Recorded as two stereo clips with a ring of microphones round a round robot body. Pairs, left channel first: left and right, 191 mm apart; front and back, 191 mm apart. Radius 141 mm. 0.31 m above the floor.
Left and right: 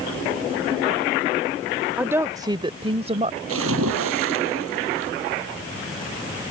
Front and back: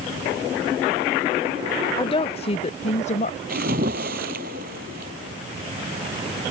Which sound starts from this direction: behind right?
A splash, at 3.5 s.